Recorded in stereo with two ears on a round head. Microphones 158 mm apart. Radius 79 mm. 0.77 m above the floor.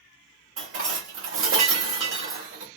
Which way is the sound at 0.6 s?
85° right.